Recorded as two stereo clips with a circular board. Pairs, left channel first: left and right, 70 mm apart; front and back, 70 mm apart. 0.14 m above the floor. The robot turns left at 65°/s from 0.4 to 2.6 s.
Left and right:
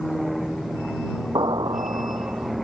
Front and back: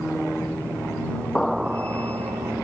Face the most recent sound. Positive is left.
turn(degrees=-165)